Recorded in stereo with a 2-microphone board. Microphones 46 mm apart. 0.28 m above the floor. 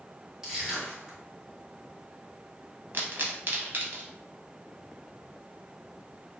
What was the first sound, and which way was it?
Crushing, 15° right (ahead or behind).